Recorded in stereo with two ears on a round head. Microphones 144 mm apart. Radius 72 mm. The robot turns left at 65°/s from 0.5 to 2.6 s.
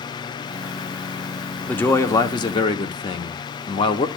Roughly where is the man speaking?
Behind.